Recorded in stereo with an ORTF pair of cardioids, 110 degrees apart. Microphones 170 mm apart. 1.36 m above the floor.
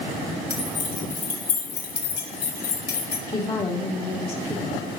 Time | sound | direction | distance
0.5 | keys jangling | 50° left | 3.5 m
3.3 | a woman speaking | 35° left | 3 m